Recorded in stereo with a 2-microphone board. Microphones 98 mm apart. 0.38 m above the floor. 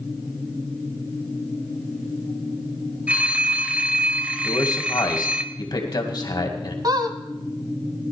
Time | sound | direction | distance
3.1 | a phone ringing | 15° right (ahead or behind) | 0.9 m
4.4 | a man speaking | 45° left (ahead or behind) | 2 m
6.8 | a squeak | 45° right (ahead or behind) | 1.2 m